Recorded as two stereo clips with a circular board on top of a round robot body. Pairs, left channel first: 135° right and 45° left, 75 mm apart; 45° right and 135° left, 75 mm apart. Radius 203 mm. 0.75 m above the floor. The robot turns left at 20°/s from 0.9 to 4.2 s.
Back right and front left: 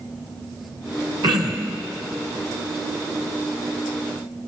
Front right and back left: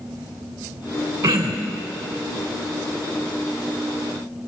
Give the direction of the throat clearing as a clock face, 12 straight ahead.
9 o'clock.